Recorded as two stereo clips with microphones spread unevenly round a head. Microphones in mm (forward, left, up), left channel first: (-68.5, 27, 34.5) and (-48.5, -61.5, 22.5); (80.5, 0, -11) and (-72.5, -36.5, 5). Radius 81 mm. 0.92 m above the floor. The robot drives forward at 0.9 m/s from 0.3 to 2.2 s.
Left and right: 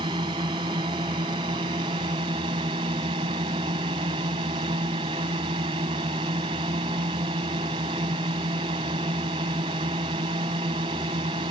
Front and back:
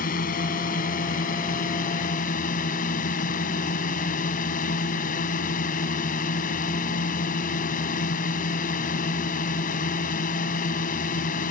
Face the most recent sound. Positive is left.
turn(degrees=-25)